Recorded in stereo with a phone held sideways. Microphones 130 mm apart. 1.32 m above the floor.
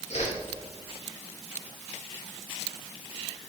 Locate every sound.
0.1 s a whoosh: 55° left (ahead or behind), 1.5 m